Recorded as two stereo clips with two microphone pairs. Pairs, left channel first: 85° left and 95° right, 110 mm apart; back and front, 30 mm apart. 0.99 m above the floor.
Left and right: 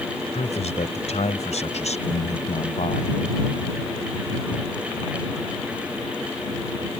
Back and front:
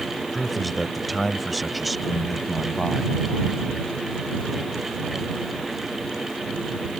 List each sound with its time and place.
0.3 s a man speaking: 90° left